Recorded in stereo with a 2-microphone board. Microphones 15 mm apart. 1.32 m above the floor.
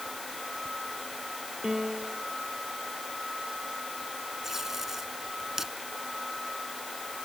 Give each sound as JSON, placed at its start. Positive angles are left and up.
{"t": 1.6, "sound": "a piano", "side_deg": -50}
{"t": 4.4, "sound": "tape being pulled", "side_deg": -35}